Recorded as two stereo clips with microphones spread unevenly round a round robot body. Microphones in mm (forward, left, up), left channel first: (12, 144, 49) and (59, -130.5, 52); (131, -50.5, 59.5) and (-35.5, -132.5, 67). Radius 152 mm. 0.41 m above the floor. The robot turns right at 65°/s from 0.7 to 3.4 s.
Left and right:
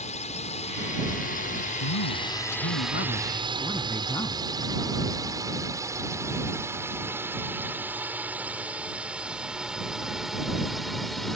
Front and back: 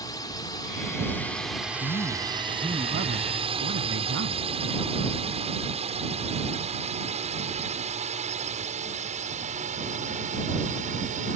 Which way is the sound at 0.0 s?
70° left.